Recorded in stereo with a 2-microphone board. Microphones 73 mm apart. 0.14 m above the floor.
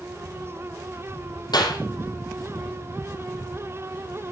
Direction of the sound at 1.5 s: 70° left (ahead or behind).